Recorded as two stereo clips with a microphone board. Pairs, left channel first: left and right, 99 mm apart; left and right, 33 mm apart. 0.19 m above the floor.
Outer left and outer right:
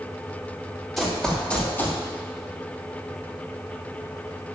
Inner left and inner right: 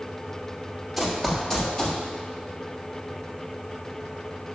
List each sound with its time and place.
1.0 s running footsteps: centre (ahead or behind), 4 m; by 2.0 s 25° left (ahead or behind), 3 m